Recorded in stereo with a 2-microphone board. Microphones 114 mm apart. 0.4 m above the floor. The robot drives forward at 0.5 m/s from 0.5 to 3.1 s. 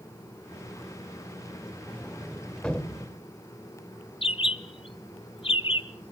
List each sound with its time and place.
1.9 s a sliding door: 10° left (ahead or behind), 0.6 m; by 3.2 s 5° left (ahead or behind), 1.0 m
4.2 s a bird: 50° left (ahead or behind), 0.6 m